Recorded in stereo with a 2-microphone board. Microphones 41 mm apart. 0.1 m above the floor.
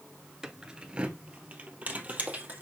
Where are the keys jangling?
15° right (ahead or behind), 0.8 m; by 2.6 s 40° right (ahead or behind), 2 m.